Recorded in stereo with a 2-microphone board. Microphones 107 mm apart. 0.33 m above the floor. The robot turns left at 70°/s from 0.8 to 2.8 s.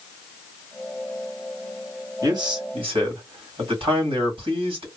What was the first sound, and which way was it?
A man speaking, 45° right.